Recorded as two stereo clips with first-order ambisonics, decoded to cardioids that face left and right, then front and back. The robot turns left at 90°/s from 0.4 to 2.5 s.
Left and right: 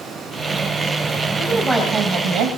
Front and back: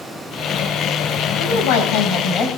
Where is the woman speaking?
30° left, 3.5 m; by 2.5 s 70° right, 3.5 m.